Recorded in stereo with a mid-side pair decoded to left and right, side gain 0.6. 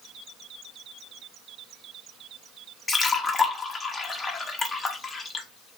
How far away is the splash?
About 0.7 m.